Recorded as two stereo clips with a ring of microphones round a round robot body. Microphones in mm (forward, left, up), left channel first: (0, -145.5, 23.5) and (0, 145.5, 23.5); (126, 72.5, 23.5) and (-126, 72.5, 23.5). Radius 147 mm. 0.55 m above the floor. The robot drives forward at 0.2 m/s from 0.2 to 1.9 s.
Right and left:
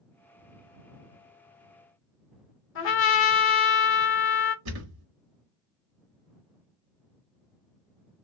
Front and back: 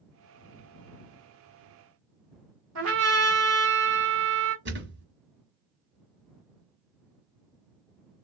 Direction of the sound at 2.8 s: 140° right.